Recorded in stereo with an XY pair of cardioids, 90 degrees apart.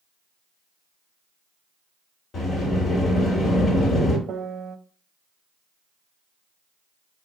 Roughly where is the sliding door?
Ahead left.